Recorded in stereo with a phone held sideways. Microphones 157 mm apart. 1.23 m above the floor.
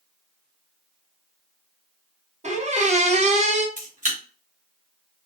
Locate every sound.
2.4 s a squeak: 45° right (ahead or behind), 0.6 m
3.8 s a camera shutter: 55° right (ahead or behind), 1.8 m